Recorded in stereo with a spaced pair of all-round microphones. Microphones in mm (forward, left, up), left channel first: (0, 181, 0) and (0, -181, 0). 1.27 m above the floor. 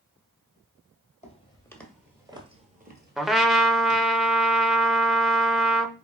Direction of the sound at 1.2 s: 20° left (ahead or behind).